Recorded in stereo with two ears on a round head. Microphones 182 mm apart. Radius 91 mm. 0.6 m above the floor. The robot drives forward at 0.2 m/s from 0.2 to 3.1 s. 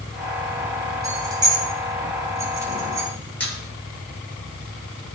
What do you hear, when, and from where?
1.0 s keys jangling: 20° right (ahead or behind), 1.8 m; by 3.1 s 15° right (ahead or behind), 2 m
3.4 s a squeak: 5° left (ahead or behind), 2.5 m